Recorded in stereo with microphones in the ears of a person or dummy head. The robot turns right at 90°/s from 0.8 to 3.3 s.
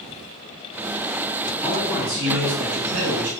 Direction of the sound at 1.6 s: 155° left.